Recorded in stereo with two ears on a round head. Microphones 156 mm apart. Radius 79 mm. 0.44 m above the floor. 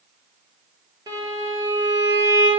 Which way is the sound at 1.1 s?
25° right (ahead or behind).